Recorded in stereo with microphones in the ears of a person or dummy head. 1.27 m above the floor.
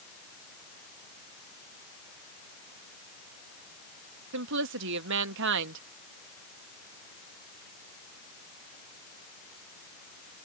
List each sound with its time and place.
4.3 s a woman speaking: 65° right (ahead or behind)